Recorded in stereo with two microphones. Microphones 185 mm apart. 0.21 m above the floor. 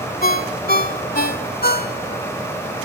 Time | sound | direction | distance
0.2 | a ringtone | 55° left (ahead or behind) | 0.8 m